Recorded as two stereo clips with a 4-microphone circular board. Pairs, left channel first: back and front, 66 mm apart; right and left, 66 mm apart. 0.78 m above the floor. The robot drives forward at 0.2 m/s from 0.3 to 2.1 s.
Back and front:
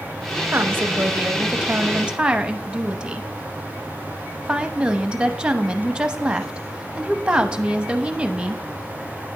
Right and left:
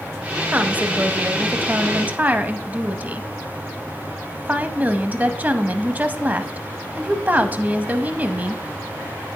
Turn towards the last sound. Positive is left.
turn(degrees=60)